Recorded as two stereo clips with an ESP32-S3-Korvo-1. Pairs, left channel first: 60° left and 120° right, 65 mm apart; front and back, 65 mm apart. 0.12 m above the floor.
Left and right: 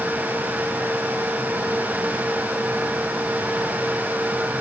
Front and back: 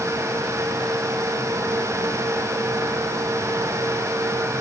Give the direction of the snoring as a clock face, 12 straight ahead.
I don't hear snoring.